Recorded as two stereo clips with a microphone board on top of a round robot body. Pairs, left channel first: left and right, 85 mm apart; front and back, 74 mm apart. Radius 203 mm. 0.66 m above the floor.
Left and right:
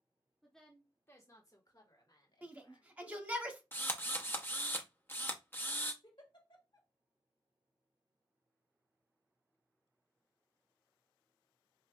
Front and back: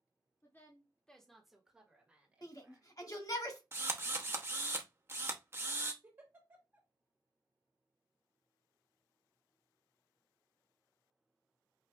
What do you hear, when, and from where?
0.4 s a woman speaking: straight ahead, 1.2 m; by 2.9 s 115° left, 2.5 m
2.4 s a shout: 20° right, 1.5 m
3.7 s a drill: 145° left, 1.0 m
6.0 s a giggle: 115° left, 1.7 m